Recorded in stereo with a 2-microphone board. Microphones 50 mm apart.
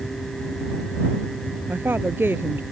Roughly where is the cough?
I don't hear a cough.